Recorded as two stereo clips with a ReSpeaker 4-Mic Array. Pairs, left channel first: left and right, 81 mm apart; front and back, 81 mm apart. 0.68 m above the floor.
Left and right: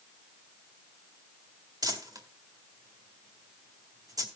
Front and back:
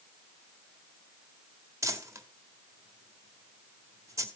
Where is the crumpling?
125° right, 1.8 m.